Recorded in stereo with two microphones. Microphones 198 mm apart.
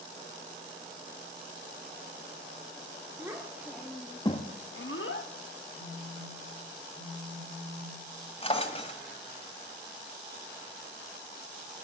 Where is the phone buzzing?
5° right (ahead or behind), 2.0 m.